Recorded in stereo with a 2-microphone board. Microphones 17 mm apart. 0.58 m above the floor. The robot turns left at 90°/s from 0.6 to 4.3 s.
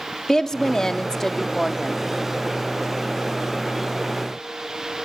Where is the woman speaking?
105° left, 0.9 m; by 2.0 s 20° right, 0.9 m.